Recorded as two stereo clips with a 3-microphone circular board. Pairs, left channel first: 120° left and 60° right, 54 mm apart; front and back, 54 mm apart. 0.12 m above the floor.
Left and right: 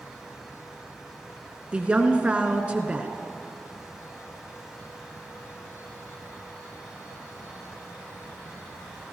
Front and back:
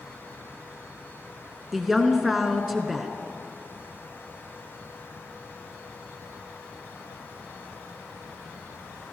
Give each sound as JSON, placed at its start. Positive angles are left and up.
{"t": 1.7, "sound": "a woman speaking", "azimuth_deg": -95, "distance_m": 1.2}